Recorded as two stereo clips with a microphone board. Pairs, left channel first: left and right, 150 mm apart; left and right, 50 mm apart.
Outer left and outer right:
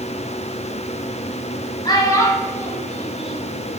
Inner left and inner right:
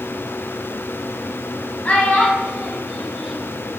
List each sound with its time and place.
1.9 s a child speaking: 30° left (ahead or behind), 1.6 m; by 3.4 s 5° right (ahead or behind), 1.6 m